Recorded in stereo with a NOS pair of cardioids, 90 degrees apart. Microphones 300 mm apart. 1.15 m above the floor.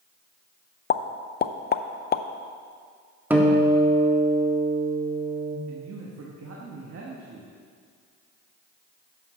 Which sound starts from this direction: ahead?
A guitar, at 3.3 s.